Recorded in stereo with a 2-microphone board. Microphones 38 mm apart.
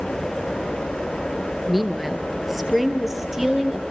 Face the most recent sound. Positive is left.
turn(degrees=-10)  # may be behind; listen again after turning